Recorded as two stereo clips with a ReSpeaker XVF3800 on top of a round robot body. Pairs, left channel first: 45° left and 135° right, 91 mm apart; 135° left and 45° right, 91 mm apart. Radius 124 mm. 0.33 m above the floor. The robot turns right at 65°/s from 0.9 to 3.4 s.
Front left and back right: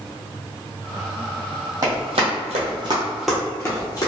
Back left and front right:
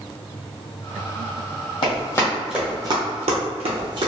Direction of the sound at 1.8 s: 165° left.